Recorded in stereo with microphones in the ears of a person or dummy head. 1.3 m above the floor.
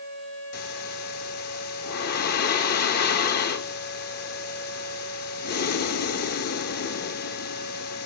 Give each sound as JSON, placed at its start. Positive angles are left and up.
{"t": 0.5, "sound": "breathing", "side_deg": 50, "distance_m": 1.4}